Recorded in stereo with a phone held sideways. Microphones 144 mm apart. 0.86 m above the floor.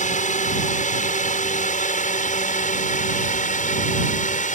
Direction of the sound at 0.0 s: 60° left (ahead or behind).